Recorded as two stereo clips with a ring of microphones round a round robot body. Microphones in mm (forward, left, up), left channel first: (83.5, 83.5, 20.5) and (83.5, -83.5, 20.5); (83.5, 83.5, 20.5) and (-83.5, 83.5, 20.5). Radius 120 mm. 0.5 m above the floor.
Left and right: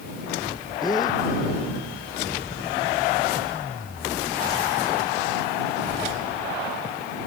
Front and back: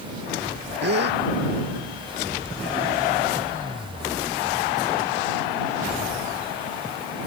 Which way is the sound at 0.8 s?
165° left.